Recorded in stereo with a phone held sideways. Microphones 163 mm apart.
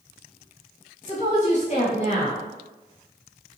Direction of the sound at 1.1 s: 45° left (ahead or behind).